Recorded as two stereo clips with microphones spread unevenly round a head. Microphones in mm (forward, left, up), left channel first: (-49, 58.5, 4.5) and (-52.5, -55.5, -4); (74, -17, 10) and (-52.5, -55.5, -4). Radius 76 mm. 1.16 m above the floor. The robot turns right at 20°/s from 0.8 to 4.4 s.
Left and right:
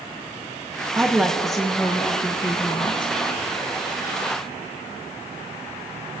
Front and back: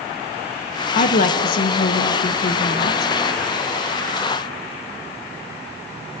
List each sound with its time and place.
0.9 s a woman speaking: 15° right, 0.8 m; by 3.1 s 30° left, 0.8 m